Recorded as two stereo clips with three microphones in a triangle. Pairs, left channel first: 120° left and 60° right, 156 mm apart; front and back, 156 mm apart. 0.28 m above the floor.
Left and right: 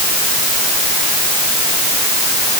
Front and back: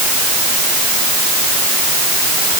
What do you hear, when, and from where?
Only background noise.